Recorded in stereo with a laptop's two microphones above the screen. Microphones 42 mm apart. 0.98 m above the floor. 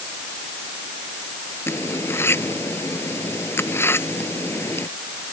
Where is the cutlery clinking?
75° left (ahead or behind).